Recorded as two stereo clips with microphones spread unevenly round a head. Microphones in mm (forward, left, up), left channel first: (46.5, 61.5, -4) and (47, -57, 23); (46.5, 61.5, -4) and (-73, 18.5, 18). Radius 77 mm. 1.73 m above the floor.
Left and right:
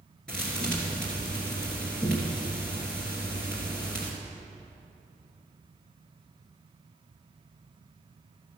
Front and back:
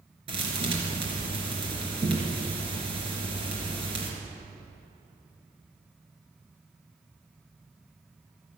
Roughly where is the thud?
Behind.